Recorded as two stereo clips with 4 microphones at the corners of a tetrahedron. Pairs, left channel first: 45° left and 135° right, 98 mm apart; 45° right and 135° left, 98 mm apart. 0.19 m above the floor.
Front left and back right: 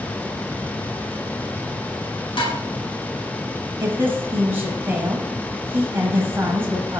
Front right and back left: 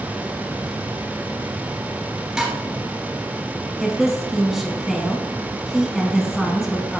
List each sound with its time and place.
2.4 s dishes clattering: 55° left, 2 m
3.8 s a woman speaking: 140° right, 1.1 m